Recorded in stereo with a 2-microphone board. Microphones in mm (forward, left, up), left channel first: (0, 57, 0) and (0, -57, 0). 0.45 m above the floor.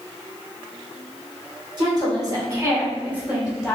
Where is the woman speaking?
40° right (ahead or behind), 1.7 m; by 3.8 s centre (ahead or behind), 1.5 m.